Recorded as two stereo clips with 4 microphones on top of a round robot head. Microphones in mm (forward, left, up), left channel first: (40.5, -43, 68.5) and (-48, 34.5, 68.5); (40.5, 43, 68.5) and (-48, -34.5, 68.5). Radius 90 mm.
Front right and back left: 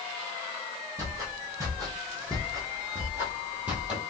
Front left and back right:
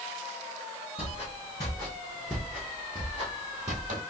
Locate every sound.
1.0 s footsteps: 75° left, 1.5 m; by 4.0 s 140° right, 1.5 m